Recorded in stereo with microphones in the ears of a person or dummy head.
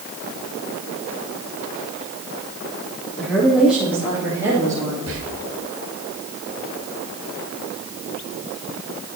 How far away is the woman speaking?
About 2.0 m.